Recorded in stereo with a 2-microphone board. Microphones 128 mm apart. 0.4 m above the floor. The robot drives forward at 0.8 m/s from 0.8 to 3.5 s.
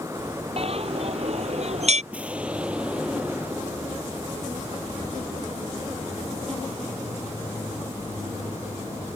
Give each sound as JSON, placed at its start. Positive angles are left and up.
{"t": 0.6, "sound": "a bell", "side_deg": -50}
{"t": 2.1, "sound": "an explosion", "side_deg": -10}